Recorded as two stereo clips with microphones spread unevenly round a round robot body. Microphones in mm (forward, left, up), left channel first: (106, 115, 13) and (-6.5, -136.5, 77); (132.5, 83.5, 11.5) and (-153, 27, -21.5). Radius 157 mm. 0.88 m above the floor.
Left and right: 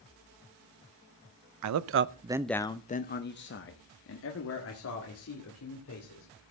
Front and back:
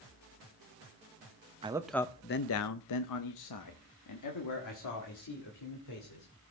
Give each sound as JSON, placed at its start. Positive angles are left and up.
{"t": 1.6, "sound": "a man speaking", "azimuth_deg": -105, "distance_m": 0.6}